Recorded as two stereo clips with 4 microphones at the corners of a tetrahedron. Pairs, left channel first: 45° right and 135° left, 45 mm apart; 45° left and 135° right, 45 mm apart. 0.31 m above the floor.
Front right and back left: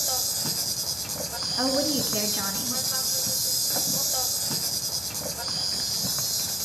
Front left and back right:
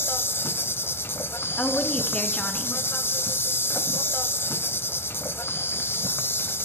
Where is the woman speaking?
110° left, 3 m.